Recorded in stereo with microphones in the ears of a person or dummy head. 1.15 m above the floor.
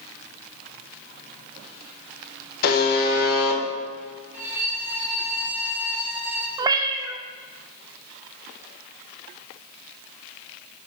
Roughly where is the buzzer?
Left.